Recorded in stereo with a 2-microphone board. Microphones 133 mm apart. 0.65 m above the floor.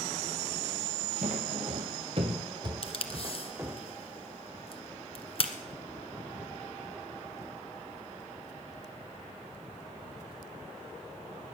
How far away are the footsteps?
About 1.3 m.